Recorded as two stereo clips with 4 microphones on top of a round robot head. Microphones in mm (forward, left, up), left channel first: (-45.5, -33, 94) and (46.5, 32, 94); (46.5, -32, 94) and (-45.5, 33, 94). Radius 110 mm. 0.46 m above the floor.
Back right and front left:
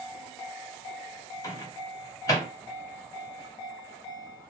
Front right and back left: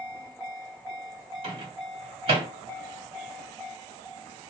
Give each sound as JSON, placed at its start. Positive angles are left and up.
{"t": 1.4, "sound": "a microwave", "azimuth_deg": 160, "distance_m": 1.8}